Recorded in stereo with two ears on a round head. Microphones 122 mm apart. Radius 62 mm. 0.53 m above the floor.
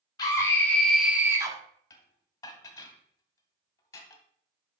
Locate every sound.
0.2 s a scream: 30° left (ahead or behind), 1.2 m; by 1.6 s 30° right (ahead or behind), 1.1 m
1.9 s dishes clattering: 25° left (ahead or behind), 1.3 m